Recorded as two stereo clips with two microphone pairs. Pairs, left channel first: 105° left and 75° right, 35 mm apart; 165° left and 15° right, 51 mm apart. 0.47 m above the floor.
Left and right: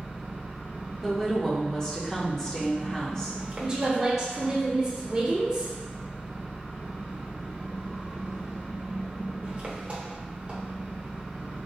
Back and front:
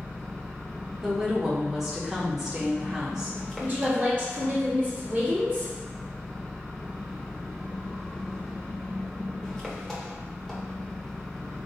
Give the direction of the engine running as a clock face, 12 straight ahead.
4 o'clock.